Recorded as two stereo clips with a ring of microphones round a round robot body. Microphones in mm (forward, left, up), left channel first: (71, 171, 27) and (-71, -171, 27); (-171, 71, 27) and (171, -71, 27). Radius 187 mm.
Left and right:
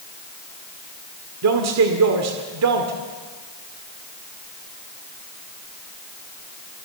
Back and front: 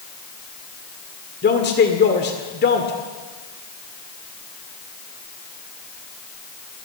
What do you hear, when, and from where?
1.4 s a man speaking: 145° right, 1.9 m